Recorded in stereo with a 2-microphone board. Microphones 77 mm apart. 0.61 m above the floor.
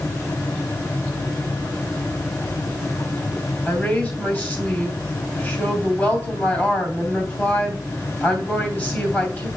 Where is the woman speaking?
25° left (ahead or behind), 3 m.